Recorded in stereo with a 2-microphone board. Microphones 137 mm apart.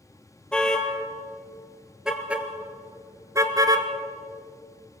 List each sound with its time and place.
0.5 s a car horn: 5° left (ahead or behind), 2.5 m; by 3.9 s 30° right (ahead or behind), 1.3 m